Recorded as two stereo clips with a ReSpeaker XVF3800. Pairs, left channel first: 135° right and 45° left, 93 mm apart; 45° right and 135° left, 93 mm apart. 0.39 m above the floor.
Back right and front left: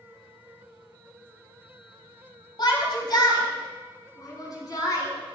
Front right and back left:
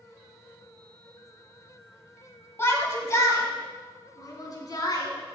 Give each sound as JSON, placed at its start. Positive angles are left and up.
{"t": 2.6, "sound": "a shout", "azimuth_deg": -105, "distance_m": 2.0}